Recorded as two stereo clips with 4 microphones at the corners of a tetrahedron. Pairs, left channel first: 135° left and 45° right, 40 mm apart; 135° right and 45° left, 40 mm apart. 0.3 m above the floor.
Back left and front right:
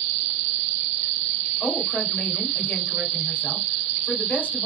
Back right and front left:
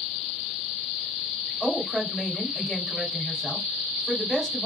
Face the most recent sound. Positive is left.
turn(degrees=155)